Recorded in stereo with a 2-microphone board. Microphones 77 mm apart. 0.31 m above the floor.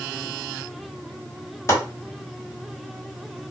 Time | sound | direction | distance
1.7 | chopping | 35° left (ahead or behind) | 2 m